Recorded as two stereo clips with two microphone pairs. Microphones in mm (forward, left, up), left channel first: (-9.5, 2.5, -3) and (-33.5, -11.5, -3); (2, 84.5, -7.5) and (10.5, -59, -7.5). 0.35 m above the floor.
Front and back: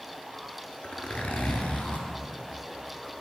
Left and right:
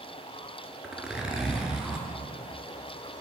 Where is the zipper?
Straight ahead, 1.2 m.